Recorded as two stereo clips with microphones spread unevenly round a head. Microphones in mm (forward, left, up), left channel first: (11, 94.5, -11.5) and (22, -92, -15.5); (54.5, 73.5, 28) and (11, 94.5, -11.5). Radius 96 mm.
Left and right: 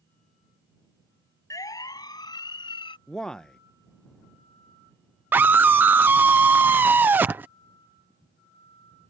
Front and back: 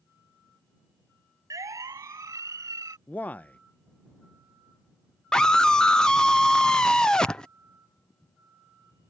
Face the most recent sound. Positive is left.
turn(degrees=-160)